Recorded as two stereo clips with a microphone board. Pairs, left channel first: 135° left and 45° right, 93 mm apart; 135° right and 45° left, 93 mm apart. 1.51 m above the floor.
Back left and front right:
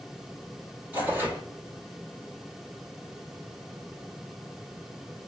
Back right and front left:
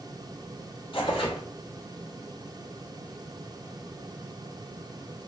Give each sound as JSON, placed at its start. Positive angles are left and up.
{"t": 0.9, "sound": "tearing paper", "azimuth_deg": -115, "distance_m": 1.1}